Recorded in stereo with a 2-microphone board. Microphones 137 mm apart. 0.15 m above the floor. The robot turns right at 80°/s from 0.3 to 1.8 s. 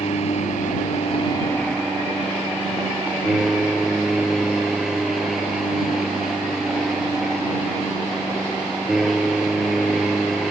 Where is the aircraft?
65° left; by 10.5 s 175° right.